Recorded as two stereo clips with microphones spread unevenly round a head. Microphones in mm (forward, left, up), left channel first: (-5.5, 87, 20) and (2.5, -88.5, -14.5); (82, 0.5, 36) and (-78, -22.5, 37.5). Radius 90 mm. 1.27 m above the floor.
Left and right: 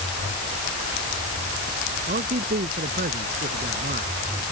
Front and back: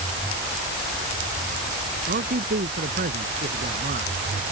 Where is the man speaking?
135° right.